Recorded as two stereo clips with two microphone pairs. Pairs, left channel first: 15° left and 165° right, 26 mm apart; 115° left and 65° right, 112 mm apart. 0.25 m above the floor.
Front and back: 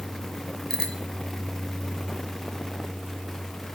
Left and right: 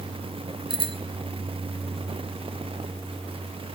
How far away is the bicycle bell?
About 2.5 m.